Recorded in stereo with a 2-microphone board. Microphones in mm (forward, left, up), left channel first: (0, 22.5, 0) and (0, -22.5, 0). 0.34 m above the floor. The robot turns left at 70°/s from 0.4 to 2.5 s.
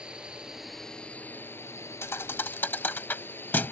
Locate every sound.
0.0 s a drone: 160° right; by 3.7 s 55° left
2.0 s a thud: 75° left (ahead or behind); by 3.7 s 50° left (ahead or behind)